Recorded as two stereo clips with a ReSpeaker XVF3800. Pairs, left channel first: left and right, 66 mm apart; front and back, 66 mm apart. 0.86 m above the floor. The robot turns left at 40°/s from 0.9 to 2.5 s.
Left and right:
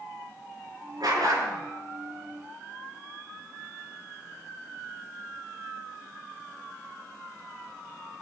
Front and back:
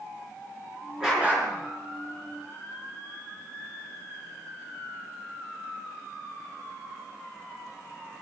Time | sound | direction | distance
1.0 | a dog barking | 100° right | 4 m